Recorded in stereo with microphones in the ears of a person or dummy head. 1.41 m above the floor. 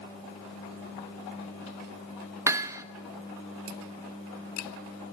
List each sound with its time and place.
2.5 s hammering: 15° right (ahead or behind), 1.1 m